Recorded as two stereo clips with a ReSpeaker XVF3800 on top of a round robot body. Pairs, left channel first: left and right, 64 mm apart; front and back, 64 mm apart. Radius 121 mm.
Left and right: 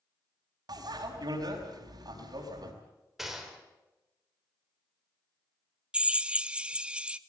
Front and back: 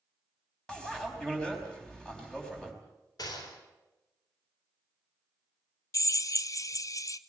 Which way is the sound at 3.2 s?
5° right.